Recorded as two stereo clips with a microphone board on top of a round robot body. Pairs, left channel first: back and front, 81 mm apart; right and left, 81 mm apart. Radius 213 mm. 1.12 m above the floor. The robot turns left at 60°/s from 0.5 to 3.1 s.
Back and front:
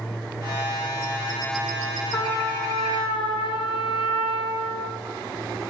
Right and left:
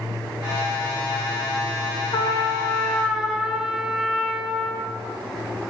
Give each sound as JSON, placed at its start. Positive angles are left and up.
{"t": 2.1, "sound": "a trumpet", "azimuth_deg": -125, "distance_m": 1.8}